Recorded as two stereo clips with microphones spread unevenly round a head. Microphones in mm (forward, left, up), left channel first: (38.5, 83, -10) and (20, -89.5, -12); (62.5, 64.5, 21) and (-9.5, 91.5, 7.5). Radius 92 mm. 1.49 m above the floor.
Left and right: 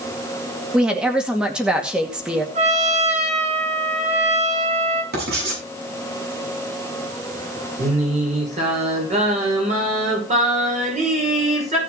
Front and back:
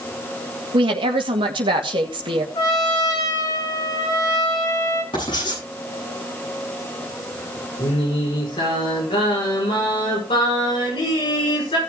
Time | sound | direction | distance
0.7 | a woman speaking | straight behind | 2 m
2.5 | a trumpet | 50° right | 3.5 m
5.1 | writing | 70° right | 8 m
7.8 | singing | 45° right | 6 m